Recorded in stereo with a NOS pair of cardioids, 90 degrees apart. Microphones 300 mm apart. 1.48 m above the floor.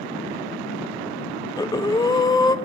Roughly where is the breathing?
Ahead.